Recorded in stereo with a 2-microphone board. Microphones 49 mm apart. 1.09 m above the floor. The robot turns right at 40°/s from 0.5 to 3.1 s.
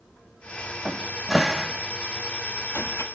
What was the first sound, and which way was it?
A cupboard door, 25° right (ahead or behind).